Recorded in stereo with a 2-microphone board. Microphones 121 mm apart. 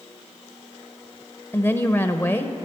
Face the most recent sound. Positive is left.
turn(degrees=20)  # may be behind; listen again after turning